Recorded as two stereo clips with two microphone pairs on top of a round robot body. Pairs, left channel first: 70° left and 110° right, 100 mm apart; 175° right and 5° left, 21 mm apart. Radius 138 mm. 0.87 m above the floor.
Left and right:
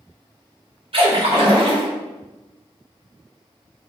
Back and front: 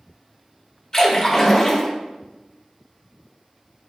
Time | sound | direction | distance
0.9 | a splash | 115° right | 1.8 m